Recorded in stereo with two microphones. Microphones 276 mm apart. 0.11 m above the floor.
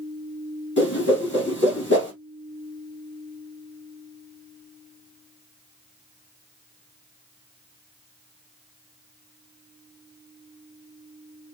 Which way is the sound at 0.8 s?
40° left (ahead or behind).